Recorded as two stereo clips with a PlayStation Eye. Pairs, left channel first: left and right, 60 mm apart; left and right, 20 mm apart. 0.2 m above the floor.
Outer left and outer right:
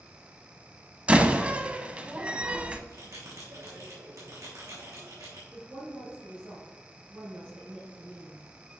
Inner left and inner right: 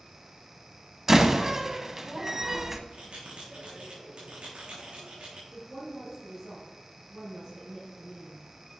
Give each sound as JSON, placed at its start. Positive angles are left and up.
{"t": 1.1, "sound": "a door slam", "side_deg": -20, "distance_m": 0.7}
{"t": 2.9, "sound": "a bell", "side_deg": -55, "distance_m": 3.5}
{"t": 5.5, "sound": "a woman speaking", "side_deg": -25, "distance_m": 3.0}